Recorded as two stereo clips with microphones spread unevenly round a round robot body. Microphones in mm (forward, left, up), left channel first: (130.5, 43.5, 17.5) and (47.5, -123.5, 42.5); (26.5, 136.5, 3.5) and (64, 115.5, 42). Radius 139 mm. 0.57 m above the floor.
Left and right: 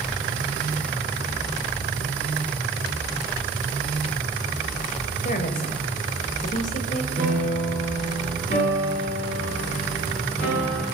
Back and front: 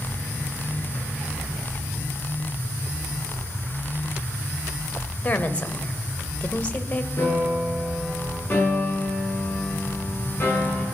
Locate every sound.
5.2 s a woman speaking: 115° left, 2.0 m
7.2 s a piano: 175° right, 6.5 m
8.5 s a piano: 120° left, 7 m